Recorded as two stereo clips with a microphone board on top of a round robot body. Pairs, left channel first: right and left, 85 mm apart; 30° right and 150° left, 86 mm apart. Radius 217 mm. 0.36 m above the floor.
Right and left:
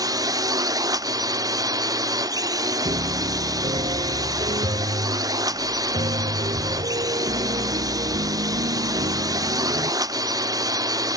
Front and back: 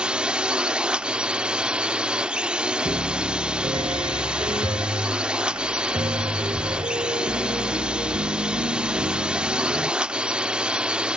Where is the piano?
115° left.